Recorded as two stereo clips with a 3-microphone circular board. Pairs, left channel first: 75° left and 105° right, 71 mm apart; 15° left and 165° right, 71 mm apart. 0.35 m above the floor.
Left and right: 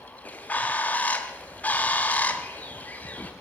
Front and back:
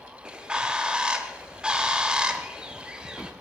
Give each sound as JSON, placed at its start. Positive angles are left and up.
{"t": 0.2, "sound": "a bird", "azimuth_deg": 120, "distance_m": 1.0}